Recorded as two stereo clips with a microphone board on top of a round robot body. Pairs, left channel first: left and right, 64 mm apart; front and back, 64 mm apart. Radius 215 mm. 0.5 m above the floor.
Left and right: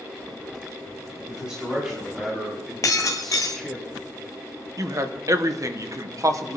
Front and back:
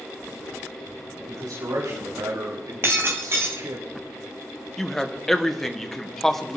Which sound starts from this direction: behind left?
Breaking glass, at 2.8 s.